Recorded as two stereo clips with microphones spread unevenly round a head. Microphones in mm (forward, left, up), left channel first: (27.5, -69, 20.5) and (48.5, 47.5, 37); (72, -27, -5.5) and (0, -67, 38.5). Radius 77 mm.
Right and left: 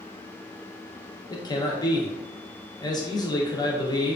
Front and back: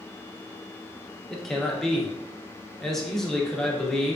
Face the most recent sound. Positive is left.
turn(degrees=-45)